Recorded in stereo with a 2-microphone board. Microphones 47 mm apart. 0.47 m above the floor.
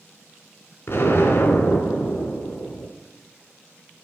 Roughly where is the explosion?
Left.